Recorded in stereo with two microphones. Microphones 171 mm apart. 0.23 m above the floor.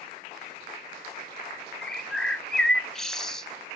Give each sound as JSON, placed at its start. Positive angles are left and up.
{"t": 1.8, "sound": "a bird", "side_deg": 5, "distance_m": 0.6}